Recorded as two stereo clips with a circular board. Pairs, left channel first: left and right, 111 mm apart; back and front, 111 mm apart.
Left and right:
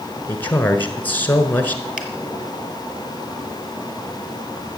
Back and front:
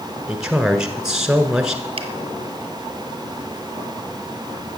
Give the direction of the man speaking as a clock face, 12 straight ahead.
10 o'clock.